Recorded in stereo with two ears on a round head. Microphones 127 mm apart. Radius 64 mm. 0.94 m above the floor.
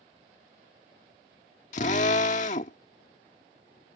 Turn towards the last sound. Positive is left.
turn(degrees=50)  # may be behind; listen again after turning